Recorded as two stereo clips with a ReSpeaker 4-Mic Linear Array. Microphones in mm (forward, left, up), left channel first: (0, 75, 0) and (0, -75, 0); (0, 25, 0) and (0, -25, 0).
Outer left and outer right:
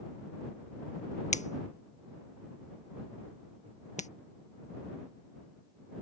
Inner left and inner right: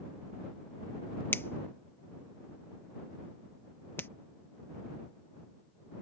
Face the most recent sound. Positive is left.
turn(degrees=55)  # may be behind; listen again after turning